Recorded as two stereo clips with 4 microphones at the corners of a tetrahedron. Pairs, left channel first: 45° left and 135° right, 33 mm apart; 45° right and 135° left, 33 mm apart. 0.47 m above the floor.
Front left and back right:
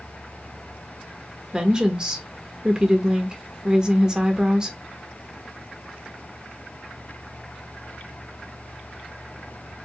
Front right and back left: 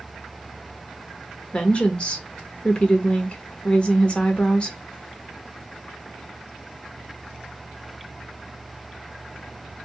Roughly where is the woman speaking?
Right.